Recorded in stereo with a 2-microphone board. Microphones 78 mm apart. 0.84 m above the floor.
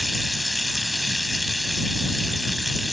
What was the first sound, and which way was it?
Running water, centre (ahead or behind).